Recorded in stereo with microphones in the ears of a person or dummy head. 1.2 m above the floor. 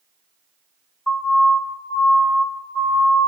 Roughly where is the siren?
Centre.